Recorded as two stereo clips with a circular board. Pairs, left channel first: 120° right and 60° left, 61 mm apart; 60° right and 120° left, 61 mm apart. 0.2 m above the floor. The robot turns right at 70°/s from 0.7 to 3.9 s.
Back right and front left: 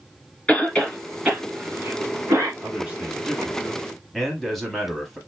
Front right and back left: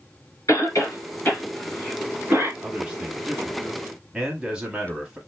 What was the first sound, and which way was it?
A cough, 50° right.